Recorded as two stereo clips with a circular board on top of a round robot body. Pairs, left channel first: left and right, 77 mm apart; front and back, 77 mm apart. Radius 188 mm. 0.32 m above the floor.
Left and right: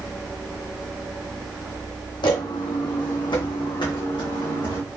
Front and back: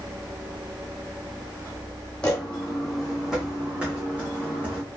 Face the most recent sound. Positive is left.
turn(degrees=110)